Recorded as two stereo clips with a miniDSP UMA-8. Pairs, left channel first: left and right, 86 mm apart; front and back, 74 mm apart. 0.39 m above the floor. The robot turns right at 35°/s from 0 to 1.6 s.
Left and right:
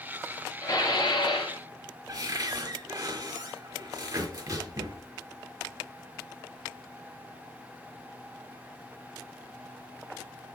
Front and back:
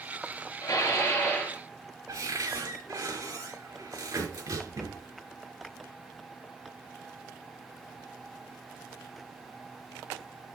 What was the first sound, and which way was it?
Dishes clattering, 40° left.